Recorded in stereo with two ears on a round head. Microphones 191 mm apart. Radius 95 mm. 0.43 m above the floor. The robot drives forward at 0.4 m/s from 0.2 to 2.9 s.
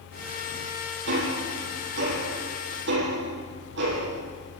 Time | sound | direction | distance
1.1 | ticking | 60° right (ahead or behind) | 9 m